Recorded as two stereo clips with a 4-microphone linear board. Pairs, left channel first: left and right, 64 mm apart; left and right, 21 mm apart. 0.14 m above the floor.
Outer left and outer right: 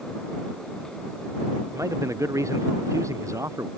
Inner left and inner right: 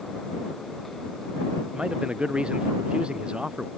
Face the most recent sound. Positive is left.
turn(degrees=-55)  # may be behind; listen again after turning